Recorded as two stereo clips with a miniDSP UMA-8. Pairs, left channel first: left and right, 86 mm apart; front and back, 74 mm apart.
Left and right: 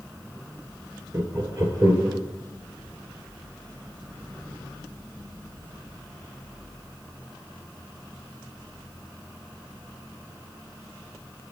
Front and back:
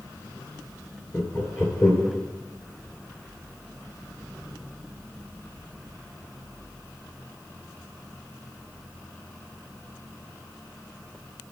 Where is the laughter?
40° right, 1.9 m.